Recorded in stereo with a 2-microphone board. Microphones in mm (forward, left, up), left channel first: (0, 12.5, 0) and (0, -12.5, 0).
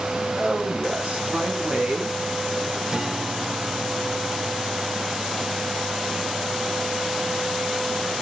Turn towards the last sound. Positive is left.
turn(degrees=-25)  # may be behind; listen again after turning